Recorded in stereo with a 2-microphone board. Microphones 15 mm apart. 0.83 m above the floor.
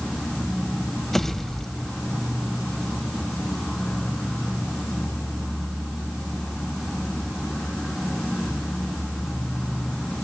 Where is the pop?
15° left (ahead or behind), 2.0 m.